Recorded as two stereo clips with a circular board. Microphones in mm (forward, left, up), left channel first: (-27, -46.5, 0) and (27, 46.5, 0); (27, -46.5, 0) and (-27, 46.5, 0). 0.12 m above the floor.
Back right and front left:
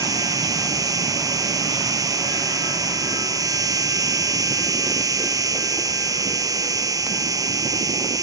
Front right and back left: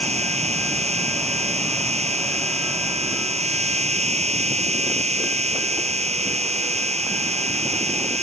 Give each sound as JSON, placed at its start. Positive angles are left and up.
{"t": 0.0, "sound": "an insect", "azimuth_deg": 115}